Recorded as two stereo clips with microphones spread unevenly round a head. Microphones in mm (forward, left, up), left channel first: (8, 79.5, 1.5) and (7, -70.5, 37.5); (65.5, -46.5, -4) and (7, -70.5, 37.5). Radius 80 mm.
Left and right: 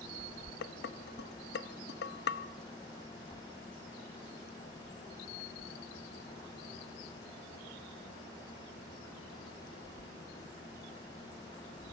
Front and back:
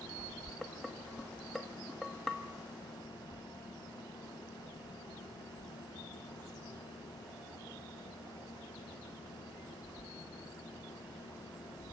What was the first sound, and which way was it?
Dishes clattering, 110° left.